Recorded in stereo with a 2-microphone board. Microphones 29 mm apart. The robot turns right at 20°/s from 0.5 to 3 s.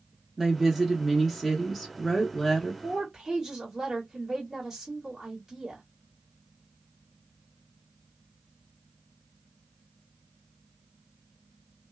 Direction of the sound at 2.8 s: 25° right (ahead or behind).